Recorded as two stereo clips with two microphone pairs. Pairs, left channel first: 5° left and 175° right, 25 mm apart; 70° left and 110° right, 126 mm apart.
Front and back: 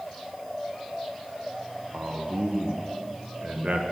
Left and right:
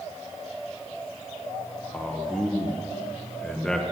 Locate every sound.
1.9 s a man speaking: 155° left, 1.0 m